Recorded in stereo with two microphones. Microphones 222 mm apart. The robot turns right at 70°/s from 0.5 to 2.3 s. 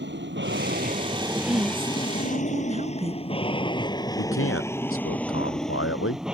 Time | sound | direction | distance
0.0 | an aircraft | 55° right (ahead or behind) | ?
1.4 | a woman speaking | 15° right (ahead or behind) | ?
4.2 | a man speaking | 75° left (ahead or behind) | ?